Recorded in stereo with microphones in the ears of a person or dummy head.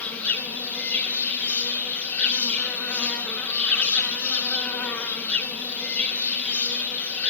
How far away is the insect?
About 2.5 m.